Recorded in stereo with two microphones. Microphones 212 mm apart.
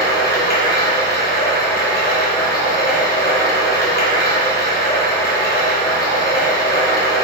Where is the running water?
45° left (ahead or behind), 1.0 m.